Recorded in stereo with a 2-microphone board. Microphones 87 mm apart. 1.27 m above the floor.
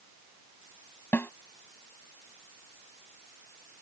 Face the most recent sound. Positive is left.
turn(degrees=25)  # may be behind; listen again after turning